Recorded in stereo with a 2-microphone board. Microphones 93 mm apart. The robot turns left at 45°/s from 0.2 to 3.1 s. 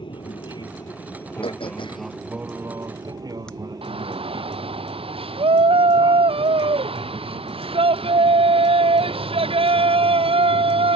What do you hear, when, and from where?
0.0 s an aircraft: 80° left; by 11.0 s 50° right
1.4 s throat clearing: 75° left (ahead or behind); by 3.5 s 10° left (ahead or behind)
3.8 s a shout: 85° right